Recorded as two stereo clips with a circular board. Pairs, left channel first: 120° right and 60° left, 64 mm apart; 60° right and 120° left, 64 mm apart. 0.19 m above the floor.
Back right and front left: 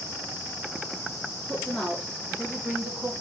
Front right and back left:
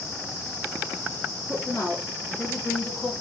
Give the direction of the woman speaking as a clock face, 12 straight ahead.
1 o'clock.